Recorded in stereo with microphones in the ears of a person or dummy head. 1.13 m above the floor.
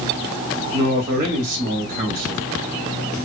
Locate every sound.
0.7 s a man speaking: 45° right (ahead or behind), 1.7 m